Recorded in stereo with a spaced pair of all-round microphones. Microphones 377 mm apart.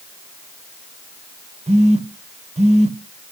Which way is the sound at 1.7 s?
15° right (ahead or behind).